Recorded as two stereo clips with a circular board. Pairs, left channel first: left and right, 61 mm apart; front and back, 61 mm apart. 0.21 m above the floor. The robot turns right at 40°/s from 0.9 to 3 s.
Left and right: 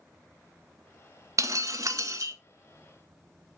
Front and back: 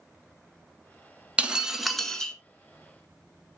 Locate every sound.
1.4 s breaking glass: 110° right, 1.0 m; by 2.3 s 70° right, 1.0 m